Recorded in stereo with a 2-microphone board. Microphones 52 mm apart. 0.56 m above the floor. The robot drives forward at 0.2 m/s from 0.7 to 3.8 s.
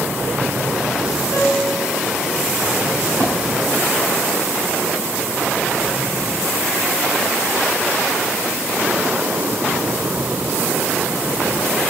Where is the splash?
70° right (ahead or behind), 1.4 m.